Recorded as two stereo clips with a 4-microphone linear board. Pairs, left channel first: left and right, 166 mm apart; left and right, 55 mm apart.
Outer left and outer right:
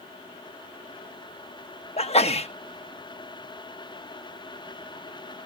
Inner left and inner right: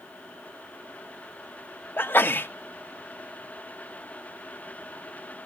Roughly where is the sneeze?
Left.